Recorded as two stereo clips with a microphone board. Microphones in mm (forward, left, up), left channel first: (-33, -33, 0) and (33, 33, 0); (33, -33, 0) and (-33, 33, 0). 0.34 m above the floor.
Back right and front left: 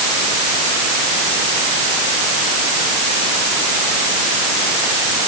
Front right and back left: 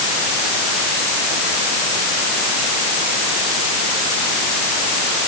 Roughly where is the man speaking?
I don't hear a man speaking.